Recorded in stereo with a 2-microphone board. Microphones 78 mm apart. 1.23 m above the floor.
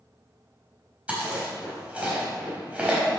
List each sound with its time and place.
1.1 s chewing: 15° right (ahead or behind), 3.5 m